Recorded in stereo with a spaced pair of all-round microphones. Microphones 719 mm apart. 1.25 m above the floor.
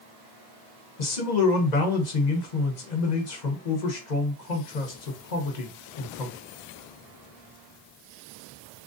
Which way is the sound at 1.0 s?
75° left (ahead or behind).